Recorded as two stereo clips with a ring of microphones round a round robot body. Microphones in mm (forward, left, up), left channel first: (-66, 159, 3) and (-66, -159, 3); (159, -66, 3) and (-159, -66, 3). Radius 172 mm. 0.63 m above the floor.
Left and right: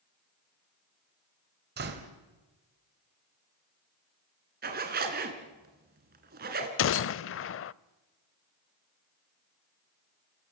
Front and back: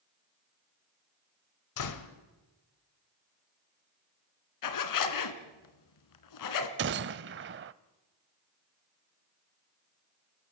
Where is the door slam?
25° right, 2 m.